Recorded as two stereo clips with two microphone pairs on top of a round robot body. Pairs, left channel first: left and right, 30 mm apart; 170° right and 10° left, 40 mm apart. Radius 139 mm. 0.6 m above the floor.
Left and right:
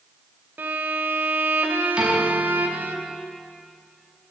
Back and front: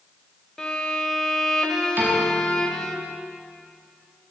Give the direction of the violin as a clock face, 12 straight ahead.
3 o'clock.